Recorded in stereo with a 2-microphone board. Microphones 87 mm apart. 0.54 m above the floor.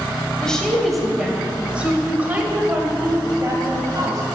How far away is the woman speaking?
About 2 m.